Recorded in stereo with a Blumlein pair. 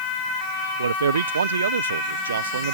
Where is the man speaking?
70° right.